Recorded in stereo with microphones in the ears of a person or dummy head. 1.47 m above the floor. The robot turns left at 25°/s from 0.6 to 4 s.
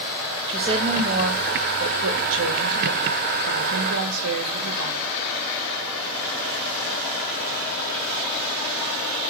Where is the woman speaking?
25° right, 1.8 m; by 5.0 s 110° right, 1.8 m.